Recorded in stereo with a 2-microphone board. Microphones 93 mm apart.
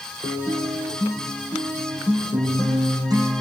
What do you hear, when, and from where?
0.2 s a guitar: 45° right (ahead or behind), 6 m